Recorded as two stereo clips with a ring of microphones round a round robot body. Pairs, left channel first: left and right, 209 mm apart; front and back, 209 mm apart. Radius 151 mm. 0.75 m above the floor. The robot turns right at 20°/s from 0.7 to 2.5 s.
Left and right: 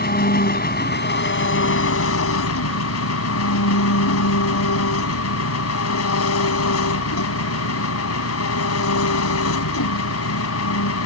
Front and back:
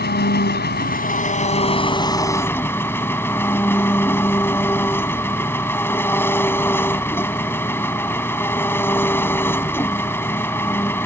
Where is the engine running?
45° left; by 11.1 s 80° left.